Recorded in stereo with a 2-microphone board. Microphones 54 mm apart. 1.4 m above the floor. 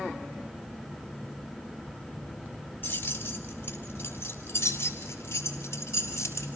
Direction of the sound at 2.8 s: 35° left (ahead or behind).